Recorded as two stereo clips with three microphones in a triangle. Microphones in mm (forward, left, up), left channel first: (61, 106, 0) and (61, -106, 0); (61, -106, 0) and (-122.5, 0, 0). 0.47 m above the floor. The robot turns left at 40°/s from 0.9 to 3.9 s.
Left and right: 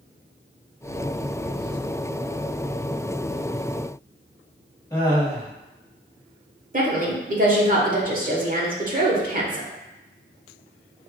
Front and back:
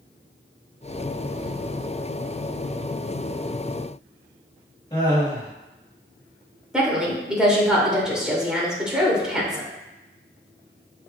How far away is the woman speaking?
About 1.1 m.